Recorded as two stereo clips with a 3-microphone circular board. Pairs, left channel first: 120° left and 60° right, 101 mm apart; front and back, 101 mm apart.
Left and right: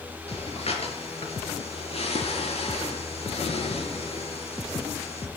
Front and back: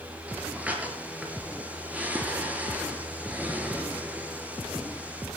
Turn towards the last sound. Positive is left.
turn(degrees=105)